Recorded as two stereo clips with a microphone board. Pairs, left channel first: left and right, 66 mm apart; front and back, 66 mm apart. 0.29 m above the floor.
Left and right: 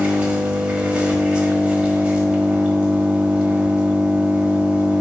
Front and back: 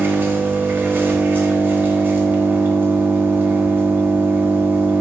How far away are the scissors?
No scissors in this recording.